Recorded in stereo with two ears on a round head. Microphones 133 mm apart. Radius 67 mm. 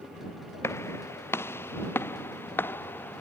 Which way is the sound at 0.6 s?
15° left (ahead or behind).